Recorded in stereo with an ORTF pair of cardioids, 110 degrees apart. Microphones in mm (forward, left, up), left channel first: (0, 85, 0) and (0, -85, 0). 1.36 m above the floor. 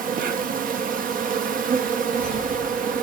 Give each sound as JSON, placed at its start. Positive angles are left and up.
{"t": 0.0, "sound": "an insect", "azimuth_deg": -55, "distance_m": 1.1}